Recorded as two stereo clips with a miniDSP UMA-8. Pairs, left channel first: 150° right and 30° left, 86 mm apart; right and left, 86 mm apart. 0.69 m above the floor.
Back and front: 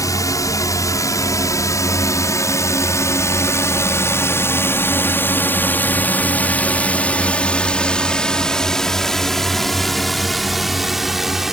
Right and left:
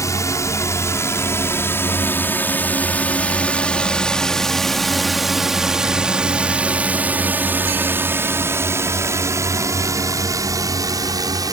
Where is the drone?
120° right; by 11.5 s 115° left.